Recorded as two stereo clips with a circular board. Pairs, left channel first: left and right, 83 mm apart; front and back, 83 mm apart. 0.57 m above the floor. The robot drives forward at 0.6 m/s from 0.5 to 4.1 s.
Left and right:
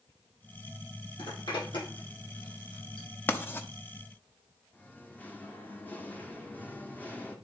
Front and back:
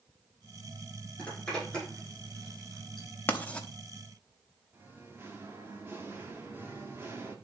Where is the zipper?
75° left, 7 m; by 3.1 s 80° left, 6.5 m.